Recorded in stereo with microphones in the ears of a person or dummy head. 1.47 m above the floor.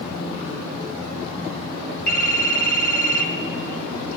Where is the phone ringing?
50° left (ahead or behind), 1.3 m.